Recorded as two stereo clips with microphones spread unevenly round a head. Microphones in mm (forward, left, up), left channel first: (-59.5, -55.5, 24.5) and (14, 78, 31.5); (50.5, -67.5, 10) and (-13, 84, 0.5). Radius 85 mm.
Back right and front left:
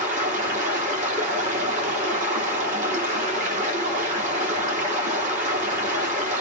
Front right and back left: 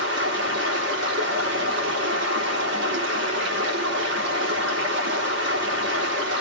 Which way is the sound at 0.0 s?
100° left.